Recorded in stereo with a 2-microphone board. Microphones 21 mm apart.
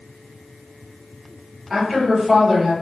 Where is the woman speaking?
15° right (ahead or behind), 1.4 m.